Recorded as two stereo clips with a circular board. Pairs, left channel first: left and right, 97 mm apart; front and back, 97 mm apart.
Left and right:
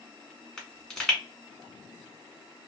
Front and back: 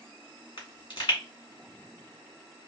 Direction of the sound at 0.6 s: 10° left.